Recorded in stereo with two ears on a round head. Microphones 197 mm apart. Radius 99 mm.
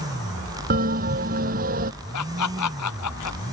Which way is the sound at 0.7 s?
40° right (ahead or behind).